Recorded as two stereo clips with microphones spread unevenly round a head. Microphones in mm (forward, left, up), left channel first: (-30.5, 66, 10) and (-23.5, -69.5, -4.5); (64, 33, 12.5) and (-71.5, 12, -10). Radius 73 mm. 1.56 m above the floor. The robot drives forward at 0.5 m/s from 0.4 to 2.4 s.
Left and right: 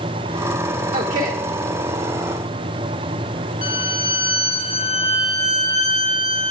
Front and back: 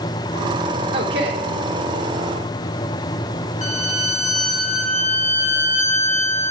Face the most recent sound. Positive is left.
turn(degrees=45)